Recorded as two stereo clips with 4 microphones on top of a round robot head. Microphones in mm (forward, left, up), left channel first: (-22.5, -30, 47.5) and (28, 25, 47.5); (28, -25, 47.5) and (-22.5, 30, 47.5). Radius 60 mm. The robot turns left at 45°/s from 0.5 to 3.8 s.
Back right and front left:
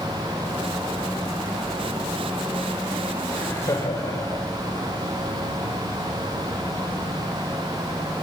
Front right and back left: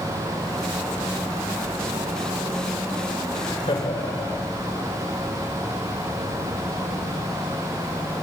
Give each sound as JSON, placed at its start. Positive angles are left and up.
{"t": 3.3, "sound": "laughter", "azimuth_deg": -60, "distance_m": 6.0}